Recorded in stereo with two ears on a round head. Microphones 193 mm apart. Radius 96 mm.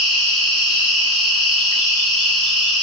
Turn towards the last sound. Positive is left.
turn(degrees=65)  # may be behind; listen again after turning